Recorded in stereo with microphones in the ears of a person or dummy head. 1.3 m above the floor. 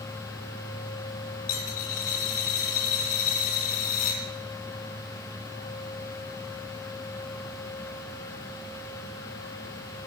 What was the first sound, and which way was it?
A dropped coin, 50° left (ahead or behind).